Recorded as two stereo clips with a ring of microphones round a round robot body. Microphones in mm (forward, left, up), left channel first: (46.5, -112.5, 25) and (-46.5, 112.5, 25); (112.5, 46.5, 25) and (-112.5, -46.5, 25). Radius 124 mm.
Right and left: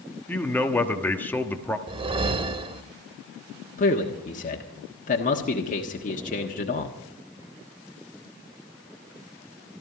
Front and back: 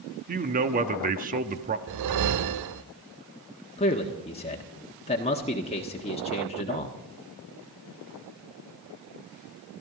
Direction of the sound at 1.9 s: 175° right.